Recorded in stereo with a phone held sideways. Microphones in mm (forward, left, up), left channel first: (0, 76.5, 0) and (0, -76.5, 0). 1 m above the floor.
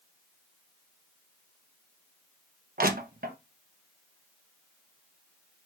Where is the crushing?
70° right (ahead or behind), 0.9 m.